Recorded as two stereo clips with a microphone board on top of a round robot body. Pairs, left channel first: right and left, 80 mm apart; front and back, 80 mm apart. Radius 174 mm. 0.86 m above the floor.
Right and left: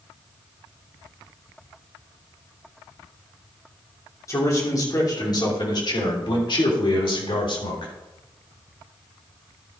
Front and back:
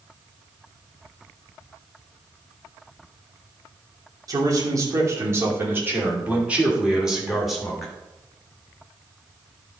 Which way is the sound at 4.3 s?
140° right.